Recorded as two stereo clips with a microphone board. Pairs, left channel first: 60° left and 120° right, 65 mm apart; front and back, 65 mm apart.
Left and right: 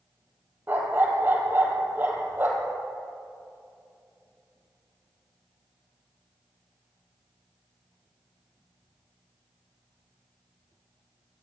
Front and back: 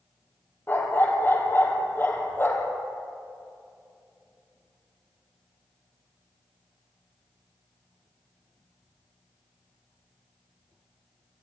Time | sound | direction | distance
0.7 | a dog barking | 60° right | 3.5 m